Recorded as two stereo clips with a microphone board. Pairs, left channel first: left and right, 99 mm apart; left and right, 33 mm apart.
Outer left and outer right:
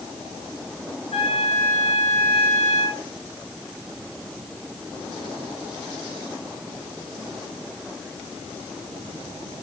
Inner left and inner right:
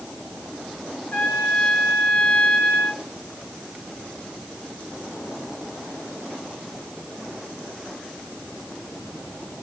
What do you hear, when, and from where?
1.1 s a trumpet: 85° left, 6 m